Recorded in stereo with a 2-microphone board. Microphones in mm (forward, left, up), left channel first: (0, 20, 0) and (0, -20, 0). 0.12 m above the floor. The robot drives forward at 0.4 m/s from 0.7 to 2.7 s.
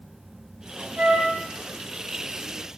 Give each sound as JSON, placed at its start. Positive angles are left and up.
{"t": 1.0, "sound": "a flute", "side_deg": -40, "distance_m": 0.8}